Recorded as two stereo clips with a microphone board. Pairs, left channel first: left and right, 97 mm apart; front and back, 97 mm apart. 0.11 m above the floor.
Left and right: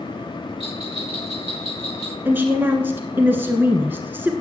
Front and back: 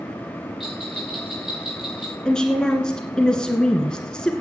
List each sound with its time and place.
0.6 s a bell: 95° right, 3 m
2.2 s a woman speaking: 65° right, 1.2 m